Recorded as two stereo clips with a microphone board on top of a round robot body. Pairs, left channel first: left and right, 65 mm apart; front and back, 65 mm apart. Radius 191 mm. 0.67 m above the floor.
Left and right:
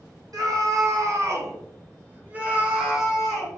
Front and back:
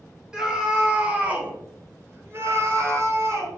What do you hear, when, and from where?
0.3 s a scream: 100° right, 1.7 m; by 3.5 s 175° left, 1.3 m